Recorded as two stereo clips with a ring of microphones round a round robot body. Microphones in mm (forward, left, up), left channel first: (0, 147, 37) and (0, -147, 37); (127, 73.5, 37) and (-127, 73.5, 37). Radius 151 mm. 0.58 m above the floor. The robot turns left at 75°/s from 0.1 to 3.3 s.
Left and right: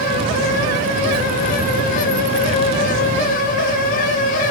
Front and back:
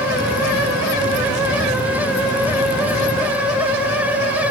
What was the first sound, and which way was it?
Only background noise.